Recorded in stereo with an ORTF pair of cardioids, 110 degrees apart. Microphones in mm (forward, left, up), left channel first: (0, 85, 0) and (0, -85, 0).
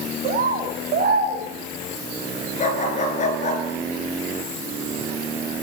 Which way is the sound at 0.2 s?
65° right.